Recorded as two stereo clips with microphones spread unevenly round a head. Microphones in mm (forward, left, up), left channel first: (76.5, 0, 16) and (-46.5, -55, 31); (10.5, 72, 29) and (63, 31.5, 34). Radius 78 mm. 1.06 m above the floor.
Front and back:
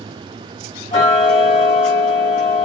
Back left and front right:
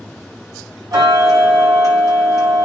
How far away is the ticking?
About 6.5 m.